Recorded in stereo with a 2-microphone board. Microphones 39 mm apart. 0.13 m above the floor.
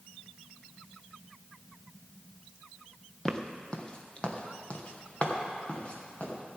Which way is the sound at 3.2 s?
15° left (ahead or behind).